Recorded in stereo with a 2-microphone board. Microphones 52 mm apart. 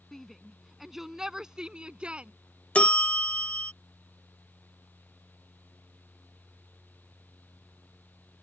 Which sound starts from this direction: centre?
A shout, at 0.1 s.